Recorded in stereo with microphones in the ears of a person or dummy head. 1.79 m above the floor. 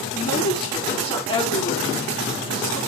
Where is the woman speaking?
25° left (ahead or behind), 5 m.